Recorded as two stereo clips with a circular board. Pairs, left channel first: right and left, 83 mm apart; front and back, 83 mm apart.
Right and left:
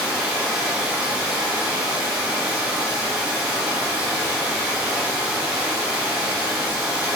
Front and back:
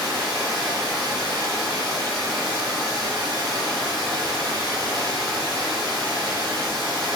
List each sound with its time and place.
0.0 s running water: 170° left, 1.7 m